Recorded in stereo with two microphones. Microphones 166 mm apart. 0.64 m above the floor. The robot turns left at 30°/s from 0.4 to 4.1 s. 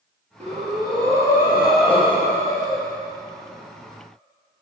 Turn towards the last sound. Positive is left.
turn(degrees=110)